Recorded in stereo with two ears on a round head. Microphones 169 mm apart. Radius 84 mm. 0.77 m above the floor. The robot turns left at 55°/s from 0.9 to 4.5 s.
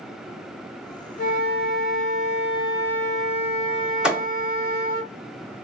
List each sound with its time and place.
1.2 s a flute: 110° left, 0.7 m; by 5.0 s 70° right, 0.7 m
4.0 s a thud: 5° right (ahead or behind), 0.9 m; by 4.3 s 15° right (ahead or behind), 0.9 m